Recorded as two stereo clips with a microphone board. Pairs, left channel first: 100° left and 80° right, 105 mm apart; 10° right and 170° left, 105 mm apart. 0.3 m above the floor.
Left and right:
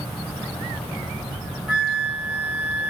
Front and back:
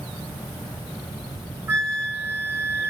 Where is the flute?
145° right, 1.0 m.